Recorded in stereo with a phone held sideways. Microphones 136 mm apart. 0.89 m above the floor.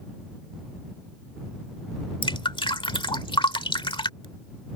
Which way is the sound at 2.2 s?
40° left (ahead or behind).